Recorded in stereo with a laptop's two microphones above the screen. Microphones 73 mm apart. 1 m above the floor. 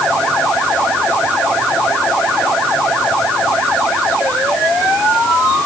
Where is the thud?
No thud in this recording.